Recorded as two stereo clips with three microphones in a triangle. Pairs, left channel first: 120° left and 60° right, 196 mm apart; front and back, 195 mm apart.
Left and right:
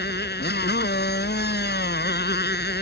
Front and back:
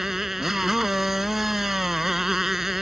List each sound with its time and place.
0.0 s a motorcycle: 90° left